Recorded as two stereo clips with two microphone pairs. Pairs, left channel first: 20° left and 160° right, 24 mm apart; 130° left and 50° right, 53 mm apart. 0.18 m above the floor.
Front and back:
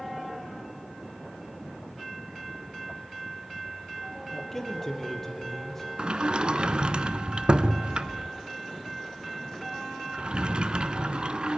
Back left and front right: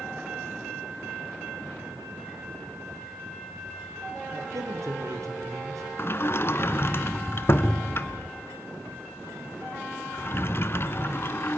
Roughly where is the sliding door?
Behind.